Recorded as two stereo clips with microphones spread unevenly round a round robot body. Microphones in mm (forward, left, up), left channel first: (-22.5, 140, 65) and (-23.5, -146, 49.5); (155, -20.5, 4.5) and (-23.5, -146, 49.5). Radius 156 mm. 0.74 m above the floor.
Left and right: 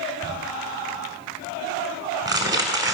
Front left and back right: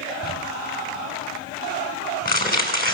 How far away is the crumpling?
About 5 m.